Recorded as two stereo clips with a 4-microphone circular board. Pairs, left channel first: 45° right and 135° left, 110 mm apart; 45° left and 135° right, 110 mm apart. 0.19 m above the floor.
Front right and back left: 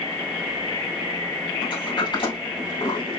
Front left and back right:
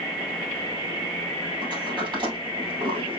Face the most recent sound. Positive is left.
turn(degrees=-90)